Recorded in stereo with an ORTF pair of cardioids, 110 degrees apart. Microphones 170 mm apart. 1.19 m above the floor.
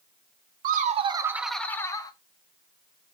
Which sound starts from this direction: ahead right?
Laughter, at 0.6 s.